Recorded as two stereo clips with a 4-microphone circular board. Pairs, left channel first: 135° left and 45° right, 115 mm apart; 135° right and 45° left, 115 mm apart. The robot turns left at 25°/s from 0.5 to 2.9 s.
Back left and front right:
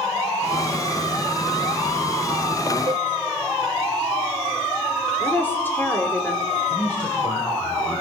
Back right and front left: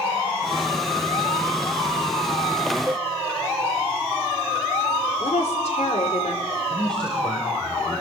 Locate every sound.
2.9 s a cowbell: 15° right, 0.8 m; by 3.1 s 20° right, 0.8 m
5.2 s a woman speaking: 150° right, 3.5 m
6.7 s a man speaking: 145° left, 4.5 m